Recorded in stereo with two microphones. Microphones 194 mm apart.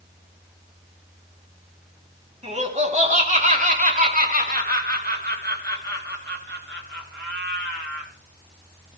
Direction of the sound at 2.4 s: 35° right (ahead or behind).